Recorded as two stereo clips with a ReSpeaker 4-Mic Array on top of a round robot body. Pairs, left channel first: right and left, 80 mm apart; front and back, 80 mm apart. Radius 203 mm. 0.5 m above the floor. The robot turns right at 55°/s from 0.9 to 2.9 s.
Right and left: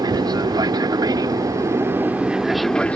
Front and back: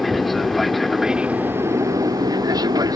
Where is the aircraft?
90° left; by 3.0 s 165° right.